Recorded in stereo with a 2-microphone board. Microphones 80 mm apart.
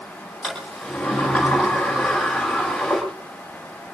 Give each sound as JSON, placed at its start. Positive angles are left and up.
{"t": 0.4, "sound": "a sliding door", "side_deg": 0, "distance_m": 10.0}